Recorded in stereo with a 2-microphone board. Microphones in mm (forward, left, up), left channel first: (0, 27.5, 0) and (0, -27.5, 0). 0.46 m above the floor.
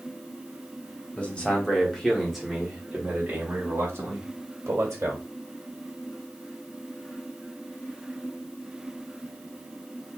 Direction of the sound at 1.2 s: 25° left (ahead or behind).